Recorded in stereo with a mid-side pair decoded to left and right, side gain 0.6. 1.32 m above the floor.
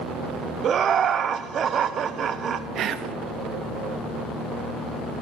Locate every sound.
0.6 s laughter: 40° right, 0.6 m
2.8 s whispering: 50° right, 0.7 m